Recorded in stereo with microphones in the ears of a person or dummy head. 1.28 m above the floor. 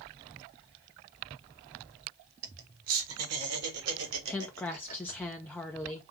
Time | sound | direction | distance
2.4 | laughter | 70° right (ahead or behind) | 1.8 m
4.3 | a woman speaking | 10° left (ahead or behind) | 0.6 m